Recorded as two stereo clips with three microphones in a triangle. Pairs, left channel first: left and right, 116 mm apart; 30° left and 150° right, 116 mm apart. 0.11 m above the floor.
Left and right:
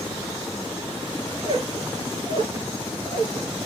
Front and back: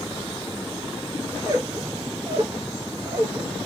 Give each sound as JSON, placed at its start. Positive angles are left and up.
{"t": 1.3, "sound": "a squeak", "azimuth_deg": -100, "distance_m": 0.6}